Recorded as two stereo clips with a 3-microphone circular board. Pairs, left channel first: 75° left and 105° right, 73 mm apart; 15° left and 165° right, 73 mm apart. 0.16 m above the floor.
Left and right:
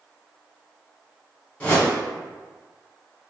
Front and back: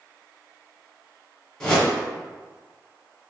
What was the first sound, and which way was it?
A whoosh, 75° left.